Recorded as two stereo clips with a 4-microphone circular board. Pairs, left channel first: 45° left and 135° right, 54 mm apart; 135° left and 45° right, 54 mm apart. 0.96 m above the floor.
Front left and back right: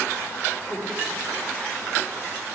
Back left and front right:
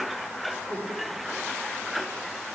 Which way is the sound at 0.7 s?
25° right.